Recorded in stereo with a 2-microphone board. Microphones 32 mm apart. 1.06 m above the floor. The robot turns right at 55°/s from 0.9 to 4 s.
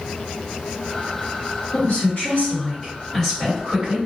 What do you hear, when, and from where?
1.7 s a woman speaking: 90° left, 1.4 m; by 4.0 s 145° right, 1.4 m